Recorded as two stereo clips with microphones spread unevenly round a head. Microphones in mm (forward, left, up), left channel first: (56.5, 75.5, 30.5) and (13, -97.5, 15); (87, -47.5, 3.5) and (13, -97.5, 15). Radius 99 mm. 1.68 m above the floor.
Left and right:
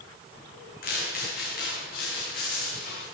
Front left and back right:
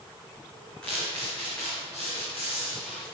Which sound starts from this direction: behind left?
Footsteps, at 0.8 s.